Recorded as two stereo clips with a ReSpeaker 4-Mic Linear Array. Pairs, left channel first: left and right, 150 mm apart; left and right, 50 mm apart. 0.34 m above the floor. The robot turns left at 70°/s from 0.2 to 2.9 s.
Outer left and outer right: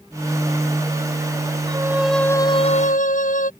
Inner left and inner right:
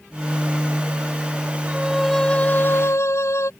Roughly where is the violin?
Behind right.